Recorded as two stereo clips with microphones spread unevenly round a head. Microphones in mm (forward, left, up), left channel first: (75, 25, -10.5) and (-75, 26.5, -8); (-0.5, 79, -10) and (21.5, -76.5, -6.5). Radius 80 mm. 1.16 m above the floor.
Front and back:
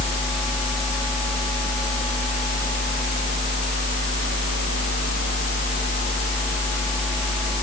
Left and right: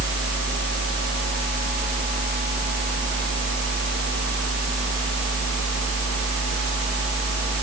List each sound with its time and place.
Only background noise.